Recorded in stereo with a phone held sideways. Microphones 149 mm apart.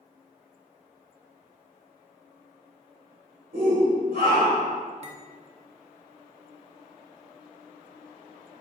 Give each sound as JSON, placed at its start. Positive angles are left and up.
{"t": 3.5, "sound": "a shout", "side_deg": -80, "distance_m": 2.5}
{"t": 5.0, "sound": "cutlery clinking", "side_deg": -45, "distance_m": 0.7}